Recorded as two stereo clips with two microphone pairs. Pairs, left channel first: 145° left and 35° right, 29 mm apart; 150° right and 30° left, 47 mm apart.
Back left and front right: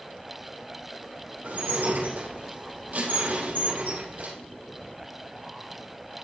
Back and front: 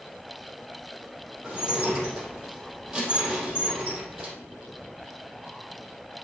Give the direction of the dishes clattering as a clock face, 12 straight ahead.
2 o'clock.